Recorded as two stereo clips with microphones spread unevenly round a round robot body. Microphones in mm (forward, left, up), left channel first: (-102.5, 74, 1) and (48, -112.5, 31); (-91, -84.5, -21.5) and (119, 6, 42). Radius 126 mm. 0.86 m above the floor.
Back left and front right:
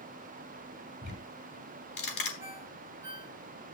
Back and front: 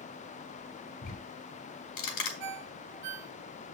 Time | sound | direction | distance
1.0 | ticking | 175° left | 4.5 m
2.4 | a ringtone | 30° left | 1.4 m